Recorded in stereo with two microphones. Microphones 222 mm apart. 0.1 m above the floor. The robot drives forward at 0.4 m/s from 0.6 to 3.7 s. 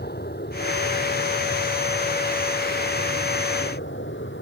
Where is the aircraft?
45° left (ahead or behind); by 4.4 s 55° left (ahead or behind).